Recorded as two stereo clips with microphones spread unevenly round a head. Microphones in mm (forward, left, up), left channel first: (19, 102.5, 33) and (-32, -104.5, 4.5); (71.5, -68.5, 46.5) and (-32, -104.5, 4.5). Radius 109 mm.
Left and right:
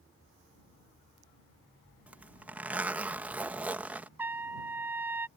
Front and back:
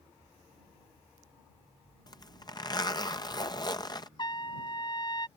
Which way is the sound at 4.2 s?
20° right.